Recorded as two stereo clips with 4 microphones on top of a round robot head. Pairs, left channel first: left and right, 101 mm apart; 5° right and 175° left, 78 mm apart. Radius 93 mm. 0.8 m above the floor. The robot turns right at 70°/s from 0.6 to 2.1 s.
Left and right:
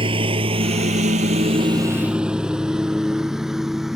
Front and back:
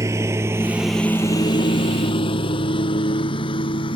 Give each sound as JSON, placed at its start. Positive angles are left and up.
{"t": 0.0, "sound": "a lawn mower", "azimuth_deg": -125}